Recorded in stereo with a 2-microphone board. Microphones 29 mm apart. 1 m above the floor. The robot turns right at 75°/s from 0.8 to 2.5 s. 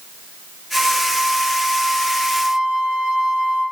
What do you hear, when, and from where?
0.7 s a flute: 175° left, 2 m; by 3.6 s 55° right, 2 m